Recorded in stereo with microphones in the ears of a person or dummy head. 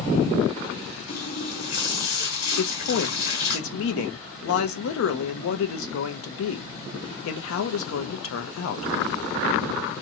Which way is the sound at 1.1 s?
65° left (ahead or behind).